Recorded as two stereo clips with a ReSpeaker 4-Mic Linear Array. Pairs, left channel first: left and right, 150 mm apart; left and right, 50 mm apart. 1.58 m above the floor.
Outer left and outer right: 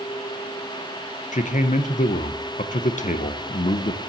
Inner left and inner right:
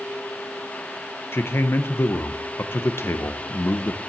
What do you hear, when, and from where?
1.3 s a man speaking: 55° left (ahead or behind), 0.9 m